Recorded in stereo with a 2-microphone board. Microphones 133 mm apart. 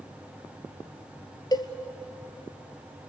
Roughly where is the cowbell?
Left.